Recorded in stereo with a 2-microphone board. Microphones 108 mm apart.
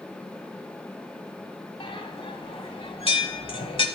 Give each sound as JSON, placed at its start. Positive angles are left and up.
{"t": 1.8, "sound": "a bell", "side_deg": 55, "distance_m": 1.4}